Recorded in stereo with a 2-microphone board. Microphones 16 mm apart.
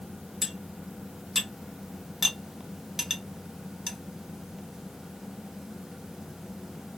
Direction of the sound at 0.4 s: 15° right (ahead or behind).